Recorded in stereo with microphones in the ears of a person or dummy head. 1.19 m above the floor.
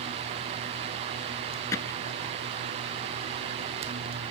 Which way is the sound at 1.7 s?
10° left (ahead or behind).